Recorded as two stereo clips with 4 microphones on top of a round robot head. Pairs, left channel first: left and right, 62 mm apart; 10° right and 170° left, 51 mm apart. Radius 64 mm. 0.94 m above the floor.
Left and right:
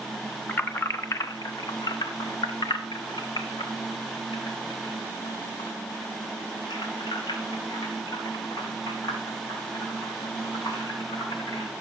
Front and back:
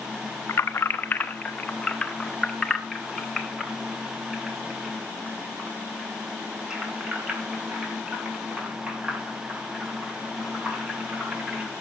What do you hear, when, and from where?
0.5 s keys jangling: 25° left, 1.0 m; by 11.7 s 100° left, 6.5 m